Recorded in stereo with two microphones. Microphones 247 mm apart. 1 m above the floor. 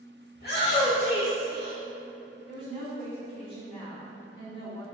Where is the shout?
45° left (ahead or behind), 0.8 m.